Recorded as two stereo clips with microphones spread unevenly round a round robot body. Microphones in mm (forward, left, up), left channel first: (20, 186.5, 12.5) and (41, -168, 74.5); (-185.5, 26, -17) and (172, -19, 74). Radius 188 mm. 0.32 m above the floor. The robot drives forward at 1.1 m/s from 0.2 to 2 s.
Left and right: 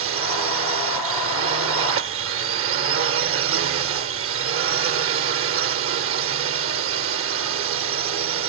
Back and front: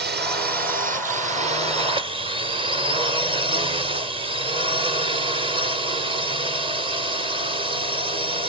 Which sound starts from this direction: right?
A drone, at 0.0 s.